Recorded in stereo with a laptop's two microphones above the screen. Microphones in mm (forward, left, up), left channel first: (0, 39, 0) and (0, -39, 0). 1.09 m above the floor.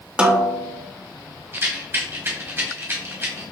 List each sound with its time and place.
0.2 s a snare drum: 15° right (ahead or behind), 0.5 m
1.5 s a rattle: 30° right (ahead or behind), 1.0 m